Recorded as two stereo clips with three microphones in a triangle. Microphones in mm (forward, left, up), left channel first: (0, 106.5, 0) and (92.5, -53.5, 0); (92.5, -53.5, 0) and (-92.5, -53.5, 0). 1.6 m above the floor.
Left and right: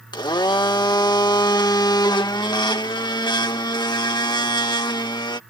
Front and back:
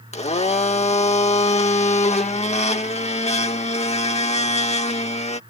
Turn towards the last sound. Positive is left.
turn(degrees=55)